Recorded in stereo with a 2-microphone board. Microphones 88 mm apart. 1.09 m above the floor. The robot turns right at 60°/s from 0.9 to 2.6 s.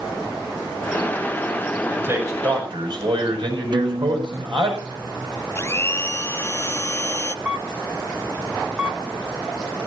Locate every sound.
1.9 s a man speaking: 165° right, 7.5 m; by 4.7 s 125° right, 7.5 m
3.7 s a guitar: 55° right (ahead or behind), 0.7 m
5.5 s a blender: 30° left (ahead or behind), 0.7 m
7.5 s a camera shutter: 15° right (ahead or behind), 1.4 m